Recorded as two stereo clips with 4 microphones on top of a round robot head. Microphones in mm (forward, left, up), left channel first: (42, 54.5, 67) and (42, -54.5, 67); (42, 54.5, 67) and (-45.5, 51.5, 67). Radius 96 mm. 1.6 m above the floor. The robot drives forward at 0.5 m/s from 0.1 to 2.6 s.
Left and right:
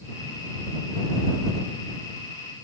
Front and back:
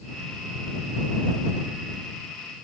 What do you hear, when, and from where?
Only background noise.